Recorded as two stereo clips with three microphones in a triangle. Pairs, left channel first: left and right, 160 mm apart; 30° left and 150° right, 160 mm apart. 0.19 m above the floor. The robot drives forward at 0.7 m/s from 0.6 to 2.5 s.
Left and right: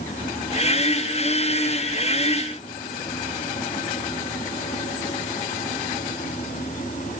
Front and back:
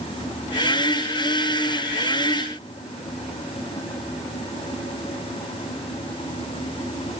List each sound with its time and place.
Only background noise.